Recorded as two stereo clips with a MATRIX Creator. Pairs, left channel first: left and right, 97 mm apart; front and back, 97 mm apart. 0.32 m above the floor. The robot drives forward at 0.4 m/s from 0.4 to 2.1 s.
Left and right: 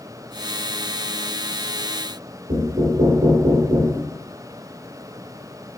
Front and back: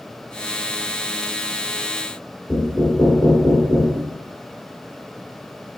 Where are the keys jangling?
No keys jangling in this recording.